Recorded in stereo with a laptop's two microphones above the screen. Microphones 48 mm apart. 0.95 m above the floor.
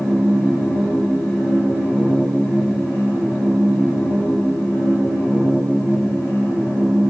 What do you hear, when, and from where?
0.0 s a machine running: 70° left (ahead or behind), 3 m